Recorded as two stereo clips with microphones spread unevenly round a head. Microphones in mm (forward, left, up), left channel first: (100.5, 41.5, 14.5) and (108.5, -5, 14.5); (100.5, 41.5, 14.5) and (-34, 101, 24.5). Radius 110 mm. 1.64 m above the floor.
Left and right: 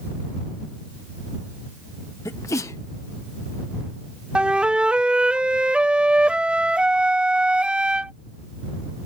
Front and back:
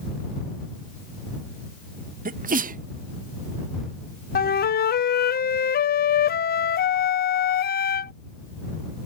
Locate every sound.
2.2 s a sneeze: 125° left
4.3 s a flute: 10° right